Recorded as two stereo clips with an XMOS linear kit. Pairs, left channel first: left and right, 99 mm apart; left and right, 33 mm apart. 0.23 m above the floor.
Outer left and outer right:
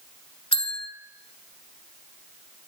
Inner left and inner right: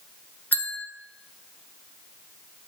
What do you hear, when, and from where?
0.5 s a bell: 80° left, 0.7 m